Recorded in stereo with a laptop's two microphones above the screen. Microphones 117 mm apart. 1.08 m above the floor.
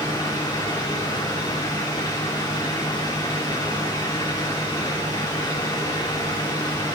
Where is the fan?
35° left (ahead or behind), 3 m.